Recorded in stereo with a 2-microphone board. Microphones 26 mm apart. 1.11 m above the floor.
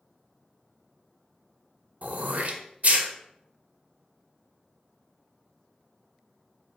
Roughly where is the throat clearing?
Right.